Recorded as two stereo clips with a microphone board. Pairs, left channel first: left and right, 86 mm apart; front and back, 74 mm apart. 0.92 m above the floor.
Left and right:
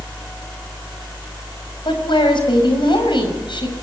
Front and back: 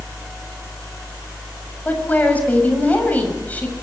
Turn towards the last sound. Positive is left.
turn(degrees=70)